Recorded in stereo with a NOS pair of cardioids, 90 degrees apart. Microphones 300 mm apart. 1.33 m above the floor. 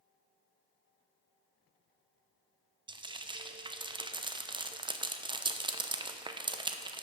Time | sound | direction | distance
2.9 | frying | 15° right | 0.7 m